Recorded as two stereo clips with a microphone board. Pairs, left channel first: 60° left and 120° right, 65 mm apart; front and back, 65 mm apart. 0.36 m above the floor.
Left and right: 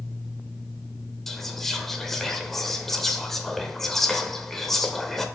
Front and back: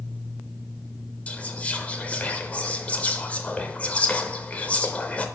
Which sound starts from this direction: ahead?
Whispering, at 1.3 s.